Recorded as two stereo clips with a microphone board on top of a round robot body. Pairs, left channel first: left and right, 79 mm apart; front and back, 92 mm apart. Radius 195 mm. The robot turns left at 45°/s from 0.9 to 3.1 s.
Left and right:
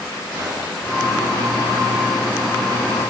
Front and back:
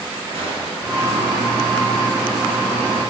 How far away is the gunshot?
About 4 m.